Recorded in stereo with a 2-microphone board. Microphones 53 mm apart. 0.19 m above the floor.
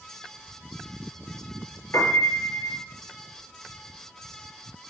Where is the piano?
60° left (ahead or behind), 3.5 m.